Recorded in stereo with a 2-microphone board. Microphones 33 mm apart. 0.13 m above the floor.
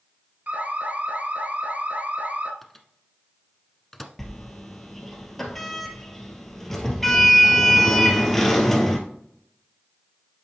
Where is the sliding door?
10° left (ahead or behind), 1.8 m.